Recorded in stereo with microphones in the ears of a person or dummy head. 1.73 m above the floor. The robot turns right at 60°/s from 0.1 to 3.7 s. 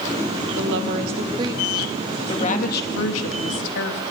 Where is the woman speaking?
75° right, 2.5 m; by 4.0 s 110° left, 2.5 m.